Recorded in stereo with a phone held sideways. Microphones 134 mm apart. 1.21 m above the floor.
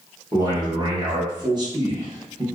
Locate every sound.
0.3 s a man speaking: 30° right (ahead or behind), 1.0 m